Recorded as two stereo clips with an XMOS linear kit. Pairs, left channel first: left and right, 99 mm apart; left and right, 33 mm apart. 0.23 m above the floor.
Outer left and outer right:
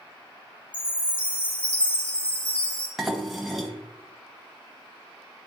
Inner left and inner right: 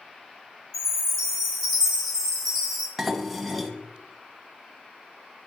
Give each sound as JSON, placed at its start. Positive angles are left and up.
{"t": 0.7, "sound": "a chime", "side_deg": 10, "distance_m": 2.0}
{"t": 3.0, "sound": "dishes clattering", "side_deg": 0, "distance_m": 0.8}